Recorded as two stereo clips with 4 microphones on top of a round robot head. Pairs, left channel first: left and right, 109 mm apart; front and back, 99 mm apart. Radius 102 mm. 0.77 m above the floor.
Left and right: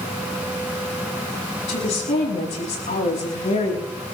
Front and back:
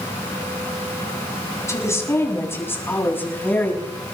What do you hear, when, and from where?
1.7 s a woman speaking: 60° left, 7.5 m; by 3.9 s 70° left, 7 m